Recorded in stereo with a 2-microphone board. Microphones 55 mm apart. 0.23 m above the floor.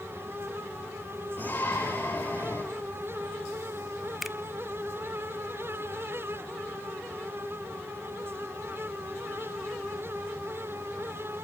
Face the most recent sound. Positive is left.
turn(degrees=0)  # may be behind; listen again after turning